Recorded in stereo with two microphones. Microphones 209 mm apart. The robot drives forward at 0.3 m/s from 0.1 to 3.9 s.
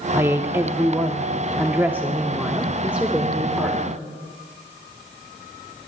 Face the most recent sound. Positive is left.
turn(degrees=-5)  # may be behind; listen again after turning